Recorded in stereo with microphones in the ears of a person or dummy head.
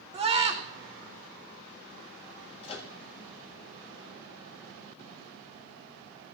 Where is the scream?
25° right (ahead or behind), 1.0 m.